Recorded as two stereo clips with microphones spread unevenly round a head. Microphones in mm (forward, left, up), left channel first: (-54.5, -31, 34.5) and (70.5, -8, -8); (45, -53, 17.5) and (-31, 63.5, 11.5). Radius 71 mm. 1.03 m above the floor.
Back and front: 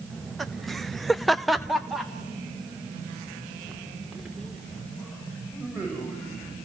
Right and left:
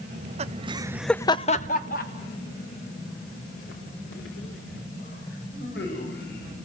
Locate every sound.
0.1 s laughter: 95° left, 1.3 m; by 6.6 s 80° right, 6 m